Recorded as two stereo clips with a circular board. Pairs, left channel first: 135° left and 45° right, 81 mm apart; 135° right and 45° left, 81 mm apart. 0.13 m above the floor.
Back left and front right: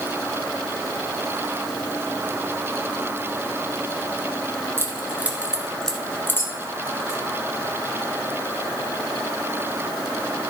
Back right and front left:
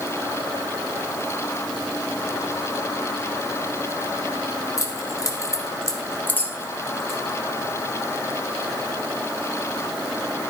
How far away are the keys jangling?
About 1.8 m.